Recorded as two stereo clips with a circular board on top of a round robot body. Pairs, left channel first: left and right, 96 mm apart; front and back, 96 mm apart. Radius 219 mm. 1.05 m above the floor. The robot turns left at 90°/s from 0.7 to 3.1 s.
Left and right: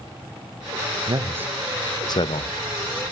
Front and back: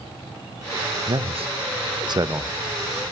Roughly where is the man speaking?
Behind right.